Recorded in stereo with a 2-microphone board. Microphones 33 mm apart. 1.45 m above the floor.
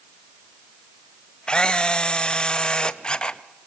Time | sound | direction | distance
1.5 | a camera shutter | 25° left (ahead or behind) | 0.7 m